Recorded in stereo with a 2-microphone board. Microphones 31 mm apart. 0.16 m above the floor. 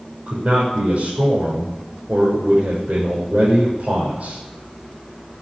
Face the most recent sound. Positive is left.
turn(degrees=-60)  # may be behind; listen again after turning